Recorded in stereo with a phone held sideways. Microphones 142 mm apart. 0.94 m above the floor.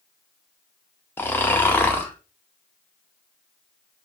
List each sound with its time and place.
1.2 s snoring: 15° left (ahead or behind), 0.7 m